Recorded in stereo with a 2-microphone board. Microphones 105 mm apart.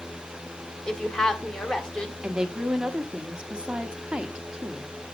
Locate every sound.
0.9 s a woman speaking: 5° left (ahead or behind), 1.6 m
2.2 s a woman speaking: 10° right (ahead or behind), 1.1 m